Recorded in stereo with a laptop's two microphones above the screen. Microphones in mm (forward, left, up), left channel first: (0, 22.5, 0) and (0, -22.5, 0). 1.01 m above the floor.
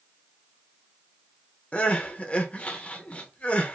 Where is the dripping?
I don't hear dripping.